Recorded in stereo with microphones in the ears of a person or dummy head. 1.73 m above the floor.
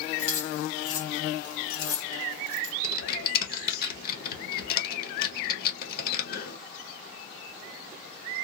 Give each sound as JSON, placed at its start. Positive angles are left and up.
{"t": 0.2, "sound": "keys jangling", "side_deg": 55, "distance_m": 1.5}
{"t": 2.8, "sound": "typing on a keyboard", "side_deg": 55, "distance_m": 1.3}